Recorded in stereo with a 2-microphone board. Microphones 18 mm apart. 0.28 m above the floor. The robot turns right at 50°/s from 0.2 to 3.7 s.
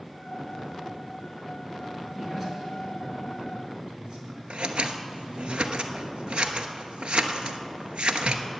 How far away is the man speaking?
About 4 m.